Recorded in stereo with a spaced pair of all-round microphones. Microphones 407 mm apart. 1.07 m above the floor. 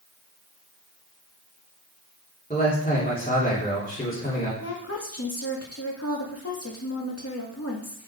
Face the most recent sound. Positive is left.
turn(degrees=40)  # may be behind; listen again after turning